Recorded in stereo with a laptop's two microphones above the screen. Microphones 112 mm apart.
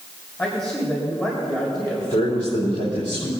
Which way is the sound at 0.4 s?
25° left (ahead or behind).